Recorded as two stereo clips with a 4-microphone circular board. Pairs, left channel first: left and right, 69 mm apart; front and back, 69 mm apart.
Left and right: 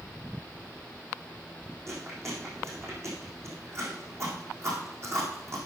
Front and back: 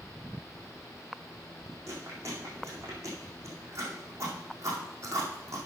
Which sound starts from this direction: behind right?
Chewing, at 1.9 s.